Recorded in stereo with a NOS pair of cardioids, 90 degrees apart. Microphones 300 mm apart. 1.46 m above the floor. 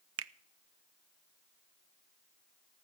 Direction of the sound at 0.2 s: 50° right.